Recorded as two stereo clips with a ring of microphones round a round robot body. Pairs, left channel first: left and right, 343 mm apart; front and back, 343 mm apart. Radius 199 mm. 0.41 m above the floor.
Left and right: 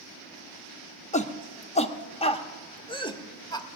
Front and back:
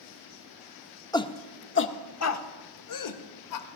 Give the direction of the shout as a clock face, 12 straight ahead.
10 o'clock.